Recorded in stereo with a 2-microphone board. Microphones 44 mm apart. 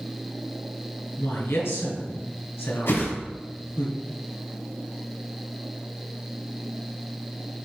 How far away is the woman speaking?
About 3 m.